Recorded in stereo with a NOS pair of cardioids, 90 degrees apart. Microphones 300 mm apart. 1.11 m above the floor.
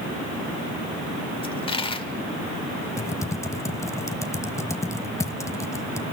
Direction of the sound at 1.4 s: 20° left.